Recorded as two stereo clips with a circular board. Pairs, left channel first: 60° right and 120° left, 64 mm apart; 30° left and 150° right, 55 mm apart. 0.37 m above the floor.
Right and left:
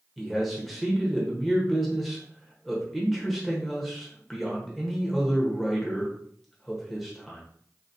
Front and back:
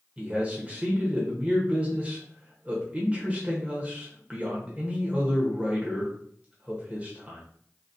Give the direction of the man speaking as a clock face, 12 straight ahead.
5 o'clock.